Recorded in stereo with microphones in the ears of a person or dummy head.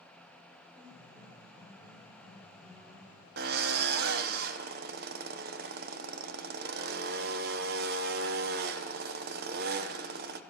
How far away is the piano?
About 3 m.